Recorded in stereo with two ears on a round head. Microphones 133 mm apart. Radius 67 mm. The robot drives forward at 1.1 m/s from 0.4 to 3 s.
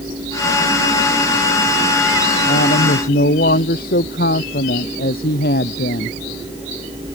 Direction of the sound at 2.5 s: 65° left (ahead or behind).